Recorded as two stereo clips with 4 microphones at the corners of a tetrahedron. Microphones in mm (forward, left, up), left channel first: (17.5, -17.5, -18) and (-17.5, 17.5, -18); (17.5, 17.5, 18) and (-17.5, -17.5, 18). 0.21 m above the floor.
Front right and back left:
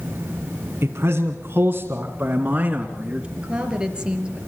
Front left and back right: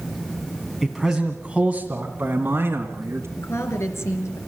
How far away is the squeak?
No squeak in this recording.